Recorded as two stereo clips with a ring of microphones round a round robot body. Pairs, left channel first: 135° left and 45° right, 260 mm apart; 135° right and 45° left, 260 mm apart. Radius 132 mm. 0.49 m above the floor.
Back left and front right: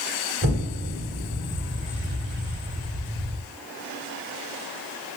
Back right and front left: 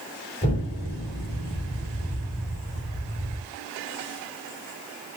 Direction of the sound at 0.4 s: 75° right.